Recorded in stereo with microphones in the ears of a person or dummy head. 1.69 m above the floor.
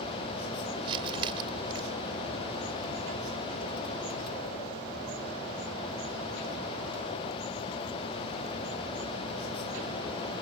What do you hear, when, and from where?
0.8 s crumpling: 30° right (ahead or behind)